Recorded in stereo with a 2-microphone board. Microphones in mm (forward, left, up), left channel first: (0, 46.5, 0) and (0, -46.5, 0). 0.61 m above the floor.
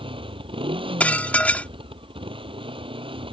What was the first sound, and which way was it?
A motorcycle, 90° right.